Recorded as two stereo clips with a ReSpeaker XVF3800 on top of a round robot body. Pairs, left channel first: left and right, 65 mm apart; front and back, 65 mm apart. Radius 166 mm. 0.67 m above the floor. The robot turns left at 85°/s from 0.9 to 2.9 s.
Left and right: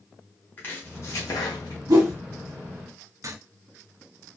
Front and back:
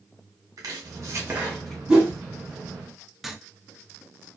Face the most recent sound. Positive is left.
turn(degrees=-95)